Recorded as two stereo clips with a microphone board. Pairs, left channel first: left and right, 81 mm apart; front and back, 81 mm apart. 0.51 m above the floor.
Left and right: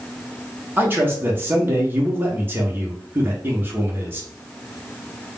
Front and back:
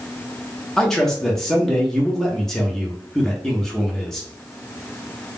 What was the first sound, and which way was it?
A man speaking, 80° right.